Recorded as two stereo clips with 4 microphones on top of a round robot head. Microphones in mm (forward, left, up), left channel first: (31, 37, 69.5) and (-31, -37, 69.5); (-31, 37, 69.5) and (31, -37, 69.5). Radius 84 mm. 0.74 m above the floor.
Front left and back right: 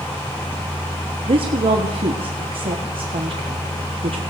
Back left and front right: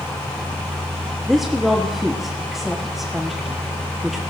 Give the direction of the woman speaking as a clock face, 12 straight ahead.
5 o'clock.